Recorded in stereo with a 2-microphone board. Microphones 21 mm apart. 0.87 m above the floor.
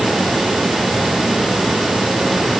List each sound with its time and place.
Only background noise.